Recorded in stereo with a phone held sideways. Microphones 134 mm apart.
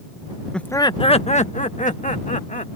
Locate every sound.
0.5 s laughter: 5° left (ahead or behind); by 2.8 s 75° left (ahead or behind)